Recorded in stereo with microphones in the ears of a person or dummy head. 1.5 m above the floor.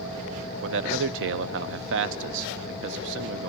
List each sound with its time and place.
0.6 s a man speaking: 65° right (ahead or behind), 0.6 m